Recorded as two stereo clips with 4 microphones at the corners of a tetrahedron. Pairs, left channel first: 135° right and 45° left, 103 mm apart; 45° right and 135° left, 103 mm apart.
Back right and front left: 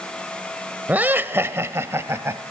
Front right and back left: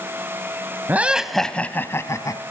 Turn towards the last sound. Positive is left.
turn(degrees=-10)